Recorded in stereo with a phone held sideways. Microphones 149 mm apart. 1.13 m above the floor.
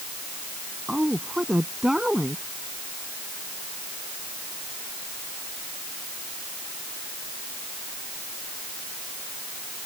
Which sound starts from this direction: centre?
A woman speaking, at 0.9 s.